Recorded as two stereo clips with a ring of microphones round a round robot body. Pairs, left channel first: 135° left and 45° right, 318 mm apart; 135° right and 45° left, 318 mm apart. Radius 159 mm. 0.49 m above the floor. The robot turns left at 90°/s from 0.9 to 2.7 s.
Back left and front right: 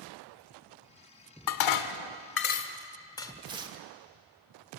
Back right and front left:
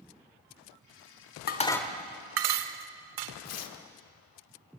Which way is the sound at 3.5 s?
115° right.